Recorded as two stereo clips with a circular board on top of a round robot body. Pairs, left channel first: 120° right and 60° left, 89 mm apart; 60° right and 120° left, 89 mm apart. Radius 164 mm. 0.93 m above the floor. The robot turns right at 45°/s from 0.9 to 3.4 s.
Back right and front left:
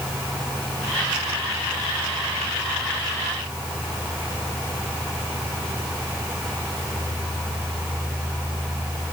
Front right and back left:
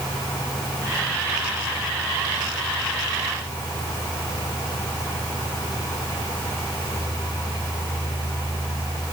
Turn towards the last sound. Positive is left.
No sound to turn to.